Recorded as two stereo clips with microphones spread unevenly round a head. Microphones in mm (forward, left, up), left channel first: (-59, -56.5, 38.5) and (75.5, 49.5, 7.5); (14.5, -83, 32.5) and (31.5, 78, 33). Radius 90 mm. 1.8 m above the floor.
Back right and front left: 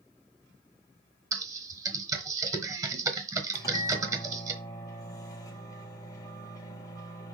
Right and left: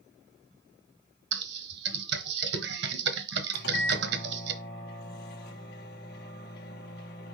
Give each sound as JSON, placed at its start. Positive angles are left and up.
{"t": 1.3, "sound": "typing on a keyboard", "azimuth_deg": 110, "distance_m": 1.1}
{"t": 3.5, "sound": "a microwave", "azimuth_deg": -75, "distance_m": 1.7}